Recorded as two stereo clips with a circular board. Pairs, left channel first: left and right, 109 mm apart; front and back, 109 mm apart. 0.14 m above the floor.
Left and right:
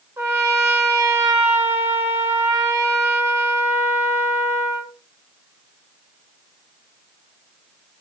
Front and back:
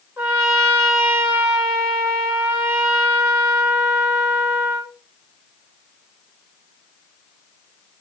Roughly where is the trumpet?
Behind right.